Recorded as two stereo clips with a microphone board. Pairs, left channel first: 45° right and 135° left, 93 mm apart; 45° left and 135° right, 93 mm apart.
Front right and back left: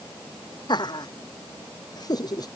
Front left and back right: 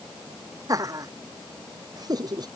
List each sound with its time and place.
0.7 s laughter: 85° right; by 2.5 s 95° right